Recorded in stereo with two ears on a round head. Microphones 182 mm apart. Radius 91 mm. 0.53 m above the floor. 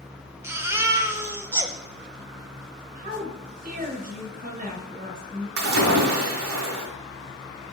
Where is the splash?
85° right, 1.9 m.